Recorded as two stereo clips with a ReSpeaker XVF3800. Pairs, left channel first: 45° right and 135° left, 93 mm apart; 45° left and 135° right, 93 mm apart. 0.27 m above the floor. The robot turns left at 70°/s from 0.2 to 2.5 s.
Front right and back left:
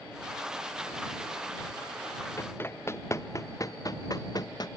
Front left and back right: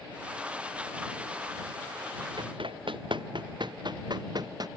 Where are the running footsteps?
105° right; by 4.7 s 90° right.